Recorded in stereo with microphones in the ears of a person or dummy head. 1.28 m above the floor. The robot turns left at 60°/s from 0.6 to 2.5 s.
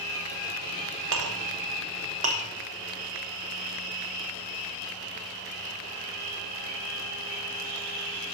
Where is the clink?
75° right (ahead or behind), 1.3 m; by 2.4 s 25° right (ahead or behind), 1.3 m.